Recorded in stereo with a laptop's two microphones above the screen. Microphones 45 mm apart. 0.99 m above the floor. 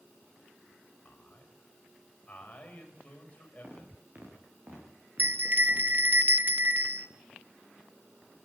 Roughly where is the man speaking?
Left.